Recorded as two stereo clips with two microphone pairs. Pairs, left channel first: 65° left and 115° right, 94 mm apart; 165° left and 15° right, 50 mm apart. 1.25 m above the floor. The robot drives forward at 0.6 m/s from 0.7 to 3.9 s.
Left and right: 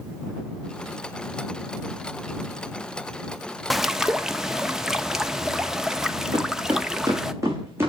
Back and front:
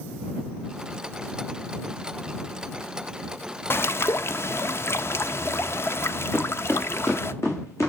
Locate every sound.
3.7 s a bird: 155° left, 0.6 m; by 7.3 s 160° left, 0.6 m
6.3 s footsteps: 145° right, 3.5 m; by 7.9 s straight behind, 4.5 m